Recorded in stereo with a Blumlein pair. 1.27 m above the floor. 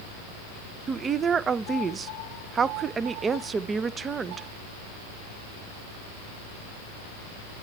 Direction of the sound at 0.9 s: 20° right.